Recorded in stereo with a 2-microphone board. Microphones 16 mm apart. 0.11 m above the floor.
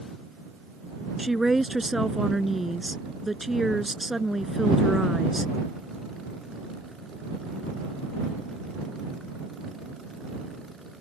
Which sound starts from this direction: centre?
A woman speaking, at 1.2 s.